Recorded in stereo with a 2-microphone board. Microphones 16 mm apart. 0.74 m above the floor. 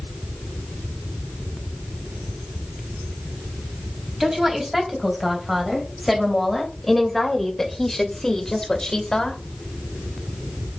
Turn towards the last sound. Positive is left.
turn(degrees=45)  # may be behind; listen again after turning